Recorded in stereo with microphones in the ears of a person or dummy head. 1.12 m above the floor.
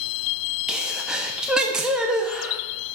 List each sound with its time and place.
0.7 s a sneeze: 5° right (ahead or behind), 0.8 m